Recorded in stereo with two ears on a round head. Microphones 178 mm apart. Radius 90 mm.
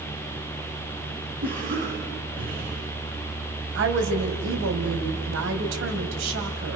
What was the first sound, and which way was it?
A cough, 45° right (ahead or behind).